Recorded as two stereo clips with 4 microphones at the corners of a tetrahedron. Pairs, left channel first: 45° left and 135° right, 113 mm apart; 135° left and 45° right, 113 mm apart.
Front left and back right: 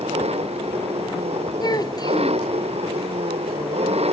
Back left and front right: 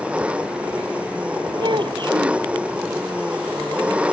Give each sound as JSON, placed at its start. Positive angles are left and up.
{"t": 0.0, "sound": "an engine running", "azimuth_deg": -125}
{"t": 1.6, "sound": "a child speaking", "azimuth_deg": -5}